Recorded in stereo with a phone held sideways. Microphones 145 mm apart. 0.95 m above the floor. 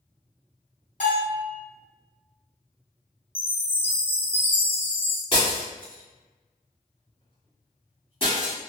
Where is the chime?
15° left (ahead or behind), 0.6 m.